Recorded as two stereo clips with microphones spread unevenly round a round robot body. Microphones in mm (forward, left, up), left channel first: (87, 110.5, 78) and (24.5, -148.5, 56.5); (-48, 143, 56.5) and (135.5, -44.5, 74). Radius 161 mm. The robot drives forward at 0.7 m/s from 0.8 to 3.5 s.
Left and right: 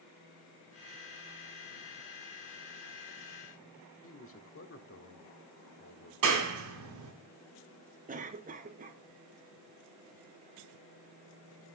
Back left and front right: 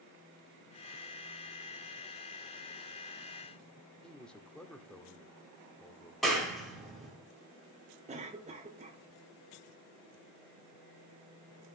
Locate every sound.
4.0 s a man speaking: 50° left, 1.5 m
6.2 s a clap: 140° right, 2.5 m
8.1 s a cough: 95° right, 1.0 m